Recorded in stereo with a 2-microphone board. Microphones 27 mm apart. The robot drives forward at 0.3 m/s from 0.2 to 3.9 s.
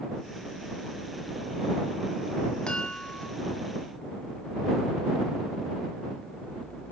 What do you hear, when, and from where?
2.7 s a chime: 40° left (ahead or behind), 1.3 m